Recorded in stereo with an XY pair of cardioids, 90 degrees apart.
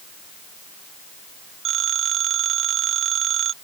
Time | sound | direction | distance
1.6 | a phone ringing | 60° right | ?